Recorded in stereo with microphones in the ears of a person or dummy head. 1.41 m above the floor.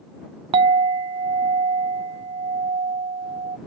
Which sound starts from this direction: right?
A clink, at 0.5 s.